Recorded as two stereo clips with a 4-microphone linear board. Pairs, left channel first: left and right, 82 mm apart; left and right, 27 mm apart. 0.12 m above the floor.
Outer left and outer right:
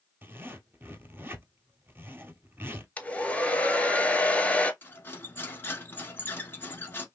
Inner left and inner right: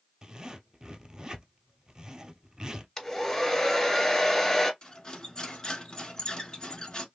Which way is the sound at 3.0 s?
15° left (ahead or behind).